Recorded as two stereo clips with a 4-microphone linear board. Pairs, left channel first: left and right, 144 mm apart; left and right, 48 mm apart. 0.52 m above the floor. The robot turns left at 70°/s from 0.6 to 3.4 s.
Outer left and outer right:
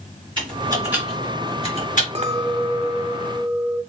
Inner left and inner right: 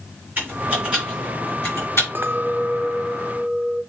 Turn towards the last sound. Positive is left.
turn(degrees=-150)